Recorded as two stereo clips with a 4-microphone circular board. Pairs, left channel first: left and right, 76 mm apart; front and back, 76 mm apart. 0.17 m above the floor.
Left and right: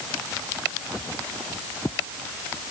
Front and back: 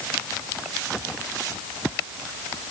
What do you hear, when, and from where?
Only background noise.